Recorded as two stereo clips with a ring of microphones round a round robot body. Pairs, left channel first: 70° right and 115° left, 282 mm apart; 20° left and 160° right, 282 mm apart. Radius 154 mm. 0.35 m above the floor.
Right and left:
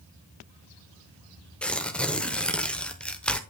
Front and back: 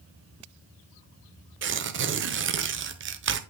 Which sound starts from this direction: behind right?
Tearing paper, at 1.6 s.